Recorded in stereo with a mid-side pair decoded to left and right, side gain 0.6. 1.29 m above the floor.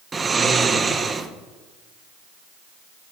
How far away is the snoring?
About 0.6 m.